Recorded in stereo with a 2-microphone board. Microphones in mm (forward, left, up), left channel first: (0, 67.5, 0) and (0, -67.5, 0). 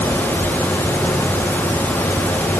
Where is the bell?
No bell in this recording.